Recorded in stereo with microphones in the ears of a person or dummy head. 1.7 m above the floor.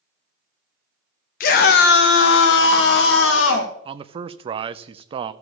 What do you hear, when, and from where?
1.4 s a scream: 45° left (ahead or behind), 0.8 m; by 3.7 s 75° left (ahead or behind), 1.8 m
3.9 s a man speaking: 35° right (ahead or behind), 0.6 m